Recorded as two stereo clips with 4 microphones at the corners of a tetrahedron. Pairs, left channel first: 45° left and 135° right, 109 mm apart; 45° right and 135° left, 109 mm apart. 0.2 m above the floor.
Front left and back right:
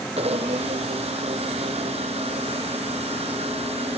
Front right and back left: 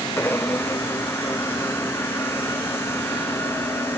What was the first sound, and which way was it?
A blender, 115° right.